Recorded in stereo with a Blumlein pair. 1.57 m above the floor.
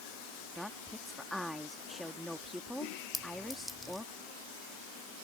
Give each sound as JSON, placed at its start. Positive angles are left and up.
{"t": 0.6, "sound": "a woman speaking", "azimuth_deg": 0}
{"t": 3.1, "sound": "a clink", "azimuth_deg": 5}